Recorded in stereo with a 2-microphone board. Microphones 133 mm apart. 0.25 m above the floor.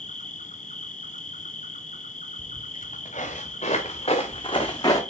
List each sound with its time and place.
0.0 s an insect: 75° left (ahead or behind), 0.7 m
2.4 s footsteps: 70° left (ahead or behind), 2 m; by 5.0 s 25° left (ahead or behind), 1.2 m